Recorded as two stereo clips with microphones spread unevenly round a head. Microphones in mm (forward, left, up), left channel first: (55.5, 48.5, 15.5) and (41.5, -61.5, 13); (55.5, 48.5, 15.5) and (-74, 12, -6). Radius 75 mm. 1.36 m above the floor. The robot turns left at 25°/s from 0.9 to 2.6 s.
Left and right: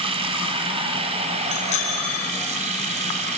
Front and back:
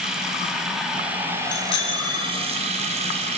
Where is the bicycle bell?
75° left, 5.5 m; by 2.3 s 50° left, 5.5 m.